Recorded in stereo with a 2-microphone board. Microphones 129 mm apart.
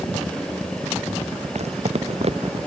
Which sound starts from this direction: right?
Footsteps, at 1.6 s.